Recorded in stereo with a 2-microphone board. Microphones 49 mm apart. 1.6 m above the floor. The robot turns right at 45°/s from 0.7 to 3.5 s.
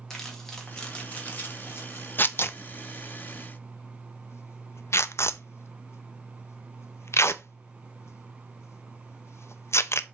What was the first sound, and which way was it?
Crumpling, 10° left (ahead or behind).